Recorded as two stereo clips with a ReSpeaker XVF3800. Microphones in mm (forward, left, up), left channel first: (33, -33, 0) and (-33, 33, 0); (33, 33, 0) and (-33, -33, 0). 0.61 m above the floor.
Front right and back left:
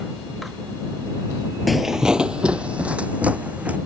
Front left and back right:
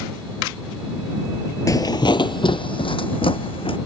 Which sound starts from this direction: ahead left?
Footsteps, at 1.7 s.